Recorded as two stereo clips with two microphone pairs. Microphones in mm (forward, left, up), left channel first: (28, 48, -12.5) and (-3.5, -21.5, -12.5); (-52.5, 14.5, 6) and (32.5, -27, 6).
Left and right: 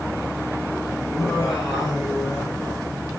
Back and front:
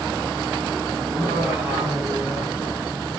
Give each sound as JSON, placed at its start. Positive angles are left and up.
{"t": 1.1, "sound": "laughter", "azimuth_deg": 30, "distance_m": 8.5}